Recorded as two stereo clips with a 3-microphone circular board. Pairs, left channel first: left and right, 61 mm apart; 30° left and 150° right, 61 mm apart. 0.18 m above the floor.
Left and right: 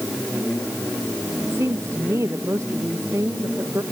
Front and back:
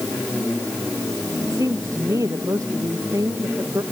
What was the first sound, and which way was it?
A woman speaking, 130° right.